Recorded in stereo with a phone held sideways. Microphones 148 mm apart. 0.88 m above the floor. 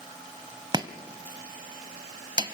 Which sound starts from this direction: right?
Chopping, at 0.7 s.